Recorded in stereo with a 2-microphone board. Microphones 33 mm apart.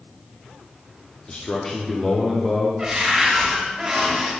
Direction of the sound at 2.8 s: 20° right (ahead or behind).